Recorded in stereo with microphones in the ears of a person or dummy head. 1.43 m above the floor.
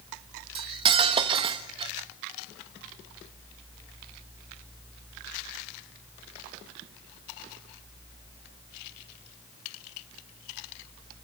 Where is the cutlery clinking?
30° right (ahead or behind), 1.1 m.